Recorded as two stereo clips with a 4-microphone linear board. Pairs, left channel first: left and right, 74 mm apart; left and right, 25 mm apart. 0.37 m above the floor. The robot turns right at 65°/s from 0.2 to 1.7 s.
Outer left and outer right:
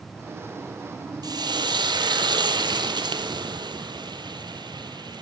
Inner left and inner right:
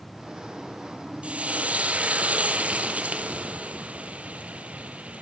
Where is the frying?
120° right, 2 m; by 5.2 s 85° right, 2 m.